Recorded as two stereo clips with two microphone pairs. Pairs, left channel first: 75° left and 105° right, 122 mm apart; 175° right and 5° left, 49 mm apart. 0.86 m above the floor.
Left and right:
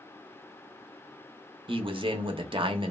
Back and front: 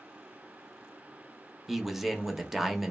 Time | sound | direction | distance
1.7 | a man speaking | 80° right | 0.5 m